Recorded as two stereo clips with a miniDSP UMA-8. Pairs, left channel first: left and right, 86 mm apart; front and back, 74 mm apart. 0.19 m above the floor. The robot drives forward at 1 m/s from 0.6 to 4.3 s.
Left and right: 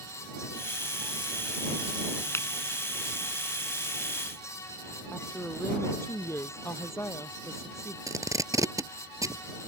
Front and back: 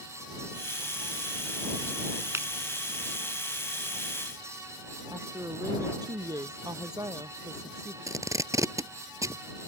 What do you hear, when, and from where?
2.3 s a finger snap: 140° left; by 2.5 s 145° left
5.1 s a woman speaking: 150° left
8.1 s tape being pulled: 135° right